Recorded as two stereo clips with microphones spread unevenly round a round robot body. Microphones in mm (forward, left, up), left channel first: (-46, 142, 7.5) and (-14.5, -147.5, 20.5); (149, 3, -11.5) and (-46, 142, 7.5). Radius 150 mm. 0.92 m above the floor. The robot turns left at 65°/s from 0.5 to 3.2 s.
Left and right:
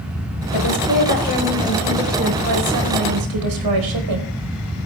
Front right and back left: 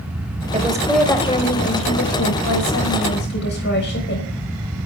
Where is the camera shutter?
No camera shutter in this recording.